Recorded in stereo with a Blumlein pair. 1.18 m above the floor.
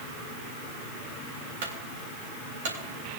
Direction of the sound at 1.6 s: 55° right.